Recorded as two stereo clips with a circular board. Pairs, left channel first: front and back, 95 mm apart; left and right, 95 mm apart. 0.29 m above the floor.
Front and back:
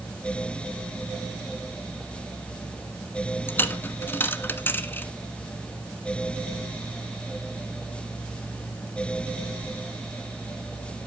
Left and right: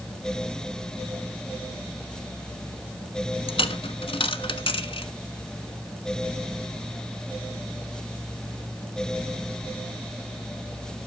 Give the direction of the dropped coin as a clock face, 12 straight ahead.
10 o'clock.